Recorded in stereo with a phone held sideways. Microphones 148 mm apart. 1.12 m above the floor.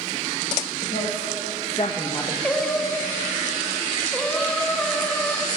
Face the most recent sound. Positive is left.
turn(degrees=5)  # may be behind; listen again after turning